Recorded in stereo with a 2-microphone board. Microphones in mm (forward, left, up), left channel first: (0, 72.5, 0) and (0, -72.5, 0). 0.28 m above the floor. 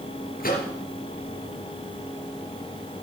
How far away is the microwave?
About 3.5 m.